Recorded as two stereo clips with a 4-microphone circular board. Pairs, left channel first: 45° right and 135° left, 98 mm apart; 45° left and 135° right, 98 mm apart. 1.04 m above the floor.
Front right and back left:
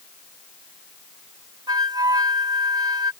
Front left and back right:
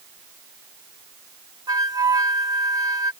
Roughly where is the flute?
Behind.